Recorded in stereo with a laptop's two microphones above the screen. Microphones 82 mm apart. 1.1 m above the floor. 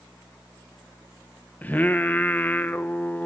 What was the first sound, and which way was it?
Singing, 20° left (ahead or behind).